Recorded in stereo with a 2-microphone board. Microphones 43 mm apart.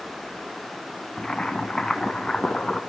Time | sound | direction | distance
1.2 | boiling | 20° left (ahead or behind) | 2.0 m